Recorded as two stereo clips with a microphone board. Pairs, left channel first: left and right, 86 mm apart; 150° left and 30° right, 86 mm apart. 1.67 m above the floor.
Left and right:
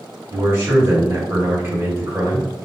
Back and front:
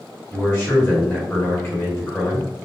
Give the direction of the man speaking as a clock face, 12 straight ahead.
5 o'clock.